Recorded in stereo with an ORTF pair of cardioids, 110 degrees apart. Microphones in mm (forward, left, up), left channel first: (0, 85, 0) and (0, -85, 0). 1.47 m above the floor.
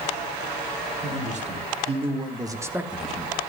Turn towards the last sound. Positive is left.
turn(degrees=15)